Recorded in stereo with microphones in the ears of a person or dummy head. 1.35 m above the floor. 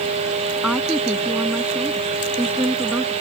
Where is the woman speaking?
Centre (ahead or behind); by 3.1 s 5° right (ahead or behind).